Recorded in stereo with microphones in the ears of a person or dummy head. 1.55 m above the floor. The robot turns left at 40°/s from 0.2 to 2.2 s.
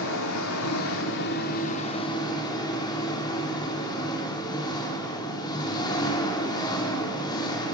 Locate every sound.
0.0 s an engine running: 100° left, 3.5 m; by 7.8 s 20° left, 3.5 m